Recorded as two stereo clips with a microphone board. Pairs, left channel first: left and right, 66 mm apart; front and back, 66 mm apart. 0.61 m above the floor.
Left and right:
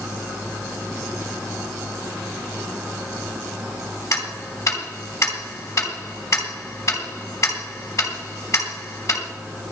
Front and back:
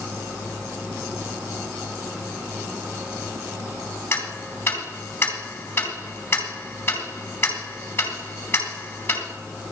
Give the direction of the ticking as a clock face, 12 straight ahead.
10 o'clock.